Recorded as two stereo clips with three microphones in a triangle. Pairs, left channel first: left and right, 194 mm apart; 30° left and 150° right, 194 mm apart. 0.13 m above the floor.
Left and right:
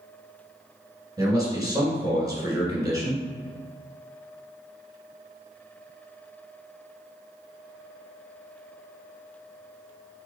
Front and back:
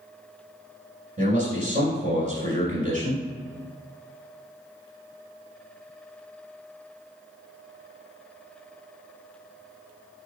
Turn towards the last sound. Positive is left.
turn(degrees=-150)